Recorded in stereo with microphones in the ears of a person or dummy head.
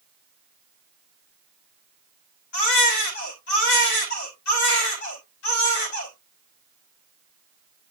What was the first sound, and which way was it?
A baby crying, 70° left (ahead or behind).